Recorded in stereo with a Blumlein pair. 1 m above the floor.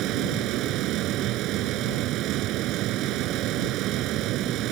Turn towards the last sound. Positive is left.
turn(degrees=-35)